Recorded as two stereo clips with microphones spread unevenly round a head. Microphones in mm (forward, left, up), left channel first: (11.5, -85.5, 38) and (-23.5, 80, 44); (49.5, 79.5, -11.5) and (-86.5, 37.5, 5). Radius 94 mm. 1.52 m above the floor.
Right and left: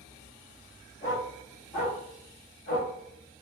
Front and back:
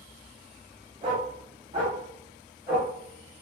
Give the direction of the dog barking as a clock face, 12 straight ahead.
5 o'clock.